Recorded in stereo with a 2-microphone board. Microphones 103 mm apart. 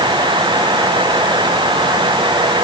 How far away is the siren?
I don't hear a siren.